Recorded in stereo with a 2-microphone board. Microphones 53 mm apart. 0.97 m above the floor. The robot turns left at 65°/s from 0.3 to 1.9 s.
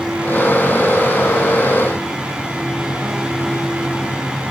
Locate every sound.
Only background noise.